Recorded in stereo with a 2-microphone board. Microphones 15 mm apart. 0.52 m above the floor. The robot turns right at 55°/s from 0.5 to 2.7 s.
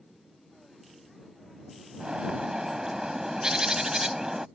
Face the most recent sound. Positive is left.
turn(degrees=-45)